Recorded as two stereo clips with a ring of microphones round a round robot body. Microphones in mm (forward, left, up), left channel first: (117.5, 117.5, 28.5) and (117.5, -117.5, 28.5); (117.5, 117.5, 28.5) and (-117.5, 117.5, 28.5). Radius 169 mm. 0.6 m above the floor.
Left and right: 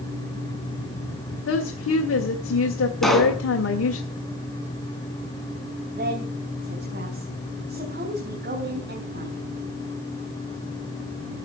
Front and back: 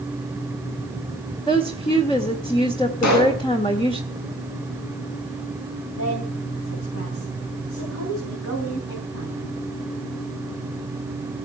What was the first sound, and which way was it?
A woman speaking, 70° left.